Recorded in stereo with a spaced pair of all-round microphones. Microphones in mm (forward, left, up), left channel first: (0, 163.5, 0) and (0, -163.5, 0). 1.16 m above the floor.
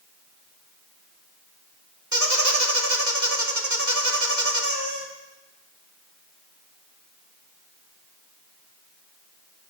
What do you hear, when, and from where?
2.1 s a squeak: 60° right (ahead or behind), 1.8 m